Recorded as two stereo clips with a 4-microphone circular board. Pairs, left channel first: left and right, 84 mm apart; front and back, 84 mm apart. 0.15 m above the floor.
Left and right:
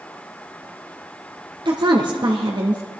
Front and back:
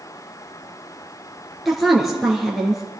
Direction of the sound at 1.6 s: 90° right.